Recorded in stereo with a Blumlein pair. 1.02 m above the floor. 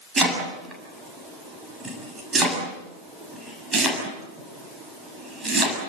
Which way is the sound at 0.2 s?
15° right.